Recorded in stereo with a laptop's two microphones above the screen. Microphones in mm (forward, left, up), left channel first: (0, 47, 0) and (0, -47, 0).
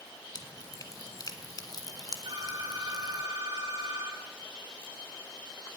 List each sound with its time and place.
0.3 s dripping: 45° left (ahead or behind), 1.5 m
2.2 s a phone ringing: 70° right (ahead or behind), 7.5 m